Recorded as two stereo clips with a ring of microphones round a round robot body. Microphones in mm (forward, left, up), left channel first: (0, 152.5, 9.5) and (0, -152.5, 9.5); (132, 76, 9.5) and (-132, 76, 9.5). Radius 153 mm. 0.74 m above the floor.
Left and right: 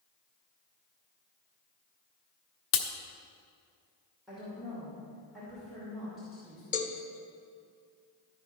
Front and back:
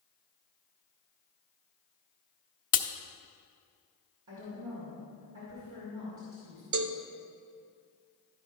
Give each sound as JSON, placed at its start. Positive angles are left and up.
{"t": 2.7, "sound": "a crack", "azimuth_deg": 50, "distance_m": 0.8}
{"t": 4.3, "sound": "a woman speaking", "azimuth_deg": 180, "distance_m": 2.5}
{"t": 6.7, "sound": "a cowbell", "azimuth_deg": 155, "distance_m": 0.6}